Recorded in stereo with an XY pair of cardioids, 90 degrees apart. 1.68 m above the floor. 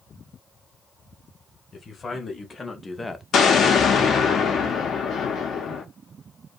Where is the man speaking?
40° left, 1.2 m; by 3.2 s 5° left, 0.5 m.